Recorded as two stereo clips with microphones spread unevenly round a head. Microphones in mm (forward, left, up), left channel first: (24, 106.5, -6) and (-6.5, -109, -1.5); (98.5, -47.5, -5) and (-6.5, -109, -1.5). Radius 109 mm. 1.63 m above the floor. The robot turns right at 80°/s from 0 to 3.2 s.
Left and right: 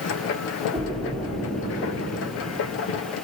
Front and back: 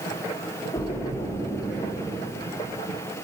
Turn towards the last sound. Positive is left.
turn(degrees=175)